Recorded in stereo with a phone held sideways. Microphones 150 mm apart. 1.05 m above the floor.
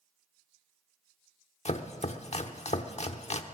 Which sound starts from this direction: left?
Chopping, at 1.6 s.